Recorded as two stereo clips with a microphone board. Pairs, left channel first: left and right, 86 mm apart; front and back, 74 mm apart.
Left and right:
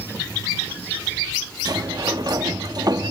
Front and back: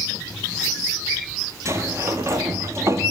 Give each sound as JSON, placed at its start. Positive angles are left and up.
{"t": 1.6, "sound": "a sliding door", "azimuth_deg": -130, "distance_m": 1.2}